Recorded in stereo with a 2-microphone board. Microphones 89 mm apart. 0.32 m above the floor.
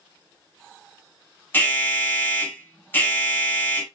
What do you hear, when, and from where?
1.5 s an alarm: 25° left (ahead or behind), 2.5 m